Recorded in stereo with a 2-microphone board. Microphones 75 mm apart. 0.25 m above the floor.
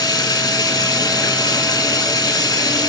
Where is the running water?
65° left (ahead or behind), 1.0 m.